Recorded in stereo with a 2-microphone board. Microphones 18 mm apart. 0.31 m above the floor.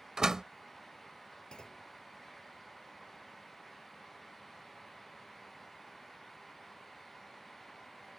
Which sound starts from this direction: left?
A clunk, at 1.5 s.